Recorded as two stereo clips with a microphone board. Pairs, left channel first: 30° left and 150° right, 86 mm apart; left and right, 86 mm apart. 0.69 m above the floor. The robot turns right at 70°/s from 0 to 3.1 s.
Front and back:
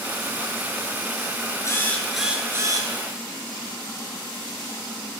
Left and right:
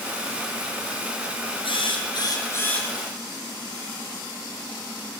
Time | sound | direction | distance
1.6 | a drill | 85° left | 4.5 m